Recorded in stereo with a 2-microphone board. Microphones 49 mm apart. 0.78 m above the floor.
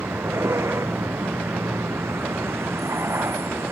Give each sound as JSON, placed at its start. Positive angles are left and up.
{"t": 0.0, "sound": "a vehicle", "side_deg": -75}